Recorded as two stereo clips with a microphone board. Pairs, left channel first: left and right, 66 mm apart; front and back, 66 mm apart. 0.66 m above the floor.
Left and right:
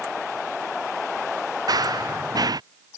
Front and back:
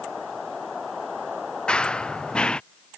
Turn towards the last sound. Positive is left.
turn(degrees=-75)